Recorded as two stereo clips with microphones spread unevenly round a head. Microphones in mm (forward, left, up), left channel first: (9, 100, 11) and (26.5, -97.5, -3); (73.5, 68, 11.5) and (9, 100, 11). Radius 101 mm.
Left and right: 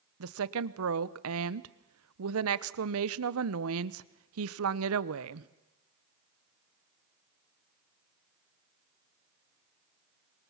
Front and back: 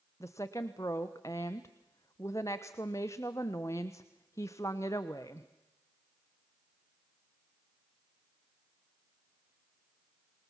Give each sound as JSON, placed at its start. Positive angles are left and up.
{"t": 0.2, "sound": "a woman speaking", "azimuth_deg": -95, "distance_m": 0.9}